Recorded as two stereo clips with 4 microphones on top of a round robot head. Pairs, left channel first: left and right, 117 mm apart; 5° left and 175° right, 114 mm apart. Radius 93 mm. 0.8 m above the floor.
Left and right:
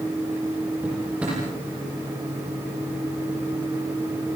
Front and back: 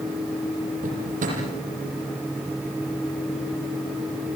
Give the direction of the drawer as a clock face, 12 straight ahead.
6 o'clock.